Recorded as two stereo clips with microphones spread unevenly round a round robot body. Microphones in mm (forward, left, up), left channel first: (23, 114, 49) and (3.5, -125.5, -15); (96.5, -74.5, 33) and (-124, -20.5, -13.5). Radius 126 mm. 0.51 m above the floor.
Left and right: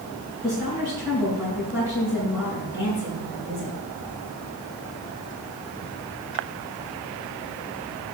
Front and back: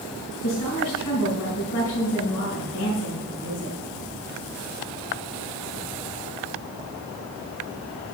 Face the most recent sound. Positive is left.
turn(degrees=-5)